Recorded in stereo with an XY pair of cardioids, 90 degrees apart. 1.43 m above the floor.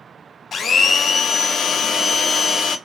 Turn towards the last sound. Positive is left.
turn(degrees=50)